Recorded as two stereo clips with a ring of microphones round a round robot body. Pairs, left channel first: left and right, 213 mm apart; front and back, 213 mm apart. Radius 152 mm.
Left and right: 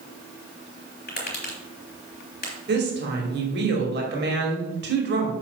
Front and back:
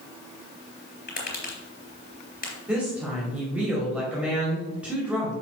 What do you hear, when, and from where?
1.1 s tapping: 45° left, 3.5 m
2.7 s a woman speaking: 95° right, 2 m